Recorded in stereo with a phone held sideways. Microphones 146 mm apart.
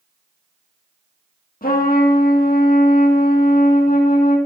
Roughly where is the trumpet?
Left.